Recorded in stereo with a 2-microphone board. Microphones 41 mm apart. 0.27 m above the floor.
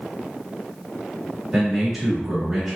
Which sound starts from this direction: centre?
A man speaking, at 1.5 s.